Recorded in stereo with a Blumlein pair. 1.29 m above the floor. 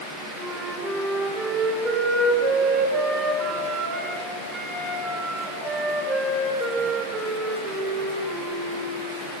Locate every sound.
0.4 s a flute: 15° right, 5.5 m